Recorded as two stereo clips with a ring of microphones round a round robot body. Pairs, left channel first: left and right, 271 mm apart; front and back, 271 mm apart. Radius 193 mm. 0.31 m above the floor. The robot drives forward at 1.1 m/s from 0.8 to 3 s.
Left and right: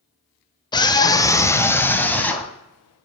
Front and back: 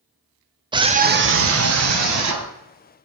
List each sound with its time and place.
0.7 s a scream: 135° left, 0.9 m; by 2.5 s 175° left, 2.5 m